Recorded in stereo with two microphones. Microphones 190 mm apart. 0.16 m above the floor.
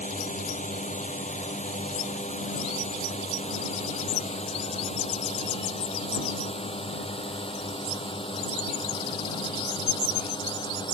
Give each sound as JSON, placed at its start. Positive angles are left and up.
{"t": 0.0, "sound": "a drone", "side_deg": 40}